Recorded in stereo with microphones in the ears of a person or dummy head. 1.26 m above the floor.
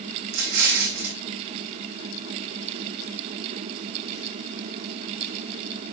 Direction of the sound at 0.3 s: 60° right (ahead or behind).